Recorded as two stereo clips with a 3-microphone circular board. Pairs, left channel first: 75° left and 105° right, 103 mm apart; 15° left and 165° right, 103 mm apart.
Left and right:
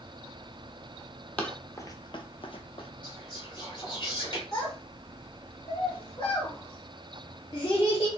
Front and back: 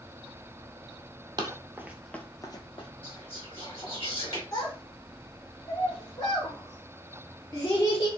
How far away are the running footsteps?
About 0.9 m.